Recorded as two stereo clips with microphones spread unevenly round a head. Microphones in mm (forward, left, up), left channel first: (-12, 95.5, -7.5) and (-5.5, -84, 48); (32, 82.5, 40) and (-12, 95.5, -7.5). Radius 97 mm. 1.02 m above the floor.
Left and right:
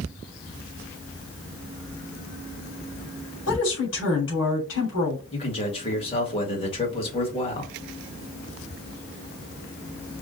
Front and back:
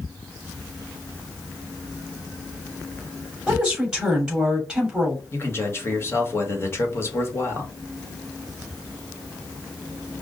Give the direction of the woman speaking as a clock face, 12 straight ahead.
9 o'clock.